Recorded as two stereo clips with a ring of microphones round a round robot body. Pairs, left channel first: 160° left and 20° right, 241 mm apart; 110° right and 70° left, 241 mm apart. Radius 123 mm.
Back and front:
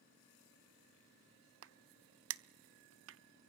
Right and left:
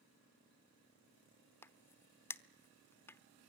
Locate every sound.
1.6 s a crack: 35° right, 1.0 m